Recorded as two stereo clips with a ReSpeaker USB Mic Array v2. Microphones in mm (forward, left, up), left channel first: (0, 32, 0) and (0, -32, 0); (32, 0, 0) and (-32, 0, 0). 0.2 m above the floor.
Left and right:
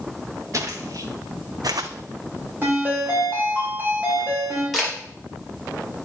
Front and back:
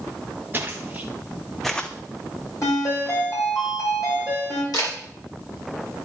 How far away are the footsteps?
About 1.3 m.